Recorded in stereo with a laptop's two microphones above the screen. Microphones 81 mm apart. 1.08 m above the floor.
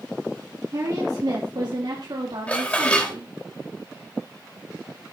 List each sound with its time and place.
0.7 s a woman speaking: 50° right (ahead or behind), 2 m; by 3.3 s 80° right, 3 m
2.5 s dishes clattering: 15° left (ahead or behind), 3 m